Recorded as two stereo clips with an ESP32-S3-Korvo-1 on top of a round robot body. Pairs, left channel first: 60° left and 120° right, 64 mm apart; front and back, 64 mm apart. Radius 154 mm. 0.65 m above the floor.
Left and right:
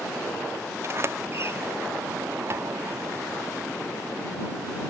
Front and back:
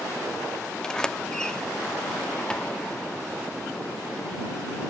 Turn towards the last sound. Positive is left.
turn(degrees=-75)